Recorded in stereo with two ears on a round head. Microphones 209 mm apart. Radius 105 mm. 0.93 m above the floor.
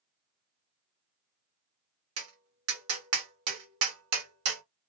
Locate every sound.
2.2 s tapping: 60° right (ahead or behind), 1.5 m